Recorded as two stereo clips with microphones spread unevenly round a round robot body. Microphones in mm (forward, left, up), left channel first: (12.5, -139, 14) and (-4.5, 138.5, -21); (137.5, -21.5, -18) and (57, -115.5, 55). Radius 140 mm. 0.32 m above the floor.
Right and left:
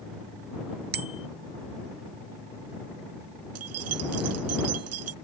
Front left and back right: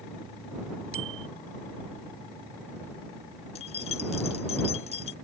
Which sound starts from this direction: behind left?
A bicycle bell, at 0.9 s.